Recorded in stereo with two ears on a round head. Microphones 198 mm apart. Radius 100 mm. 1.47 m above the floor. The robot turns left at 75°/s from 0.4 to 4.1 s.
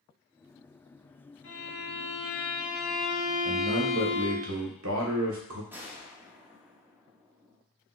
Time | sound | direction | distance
1.4 | a violin | 110° left | 1.9 m
3.5 | a man speaking | 20° right | 1.1 m
5.7 | a gunshot | 10° right (ahead or behind) | 0.8 m